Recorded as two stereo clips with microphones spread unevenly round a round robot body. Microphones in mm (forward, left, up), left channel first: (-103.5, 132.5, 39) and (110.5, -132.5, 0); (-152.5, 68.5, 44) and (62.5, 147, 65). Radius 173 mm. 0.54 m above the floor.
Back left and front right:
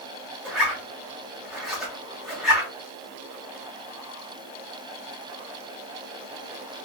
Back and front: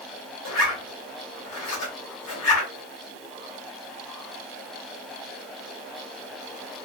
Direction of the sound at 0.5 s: 140° right.